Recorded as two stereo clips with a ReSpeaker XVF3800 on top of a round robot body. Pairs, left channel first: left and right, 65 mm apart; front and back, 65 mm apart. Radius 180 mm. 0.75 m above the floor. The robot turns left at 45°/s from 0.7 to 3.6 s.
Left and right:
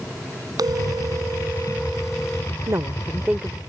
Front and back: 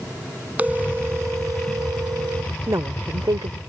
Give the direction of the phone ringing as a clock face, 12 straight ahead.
4 o'clock.